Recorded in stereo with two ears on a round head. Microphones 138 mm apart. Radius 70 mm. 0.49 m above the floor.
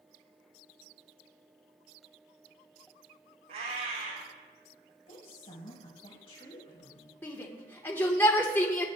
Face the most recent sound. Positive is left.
turn(degrees=15)  # may be behind; listen again after turning